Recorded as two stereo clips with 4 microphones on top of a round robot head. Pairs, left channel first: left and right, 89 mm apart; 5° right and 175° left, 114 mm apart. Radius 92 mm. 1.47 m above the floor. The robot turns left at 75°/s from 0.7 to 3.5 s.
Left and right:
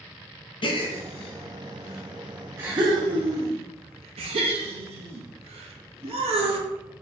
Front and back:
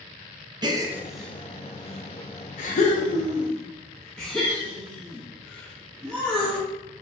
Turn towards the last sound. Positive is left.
turn(degrees=-90)